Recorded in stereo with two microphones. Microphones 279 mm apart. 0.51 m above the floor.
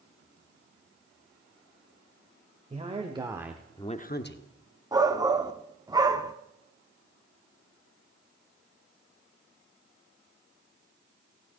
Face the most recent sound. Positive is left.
turn(degrees=-15)  # may be behind; listen again after turning